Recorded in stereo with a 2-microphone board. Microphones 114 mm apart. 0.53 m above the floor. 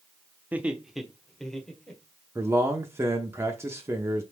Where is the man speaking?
20° right (ahead or behind), 0.7 m.